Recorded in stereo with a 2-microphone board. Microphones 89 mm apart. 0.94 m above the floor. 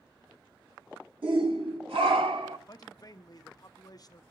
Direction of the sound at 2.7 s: 45° left (ahead or behind).